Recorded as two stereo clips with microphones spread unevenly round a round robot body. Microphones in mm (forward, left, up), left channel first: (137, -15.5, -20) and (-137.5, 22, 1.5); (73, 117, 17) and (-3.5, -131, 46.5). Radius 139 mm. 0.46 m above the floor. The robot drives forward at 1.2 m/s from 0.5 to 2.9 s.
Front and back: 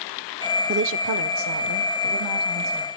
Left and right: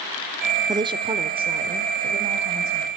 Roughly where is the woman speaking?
Behind.